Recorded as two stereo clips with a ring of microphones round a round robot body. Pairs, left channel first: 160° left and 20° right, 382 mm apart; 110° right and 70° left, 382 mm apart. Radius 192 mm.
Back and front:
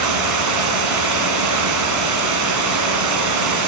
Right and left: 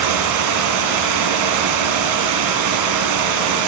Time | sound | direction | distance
0.0 | running water | 25° left | 1.5 m